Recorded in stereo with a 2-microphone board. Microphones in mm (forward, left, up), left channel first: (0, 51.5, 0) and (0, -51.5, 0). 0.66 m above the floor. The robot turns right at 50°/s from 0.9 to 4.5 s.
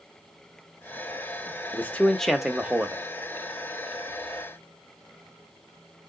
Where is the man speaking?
150° left, 0.9 m; by 3.0 s 145° right, 0.9 m.